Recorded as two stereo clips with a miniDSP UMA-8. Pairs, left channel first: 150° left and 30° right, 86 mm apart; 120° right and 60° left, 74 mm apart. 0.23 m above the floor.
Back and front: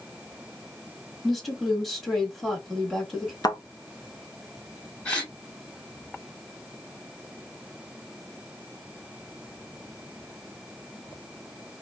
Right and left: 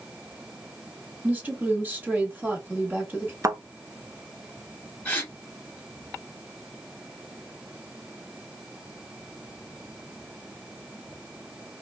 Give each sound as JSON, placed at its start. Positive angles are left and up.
{"t": 1.2, "sound": "a woman speaking", "azimuth_deg": 60, "distance_m": 1.3}
{"t": 3.4, "sound": "a thud", "azimuth_deg": 110, "distance_m": 0.6}
{"t": 5.0, "sound": "a gasp", "azimuth_deg": -160, "distance_m": 1.7}